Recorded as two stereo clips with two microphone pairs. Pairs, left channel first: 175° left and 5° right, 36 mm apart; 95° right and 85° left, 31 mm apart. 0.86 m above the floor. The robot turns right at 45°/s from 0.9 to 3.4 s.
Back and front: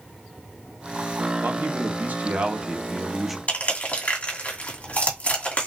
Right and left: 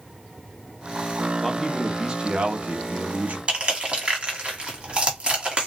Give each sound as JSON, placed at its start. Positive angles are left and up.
{"t": 1.4, "sound": "a man speaking", "azimuth_deg": 0, "distance_m": 1.0}
{"t": 3.5, "sound": "crushing", "azimuth_deg": 140, "distance_m": 2.0}